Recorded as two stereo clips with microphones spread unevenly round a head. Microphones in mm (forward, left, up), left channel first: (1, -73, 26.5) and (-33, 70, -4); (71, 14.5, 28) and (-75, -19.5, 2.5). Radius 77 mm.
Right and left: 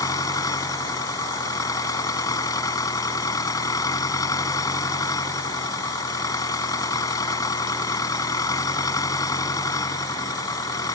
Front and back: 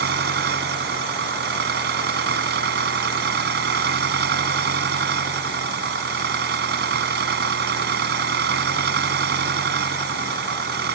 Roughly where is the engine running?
Behind right.